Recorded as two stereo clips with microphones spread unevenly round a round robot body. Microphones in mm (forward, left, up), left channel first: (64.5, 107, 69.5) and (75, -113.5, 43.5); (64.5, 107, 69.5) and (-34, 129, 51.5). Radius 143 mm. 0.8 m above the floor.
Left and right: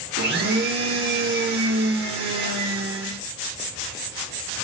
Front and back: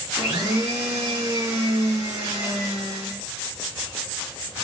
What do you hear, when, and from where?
0.2 s a blender: 135° right, 0.7 m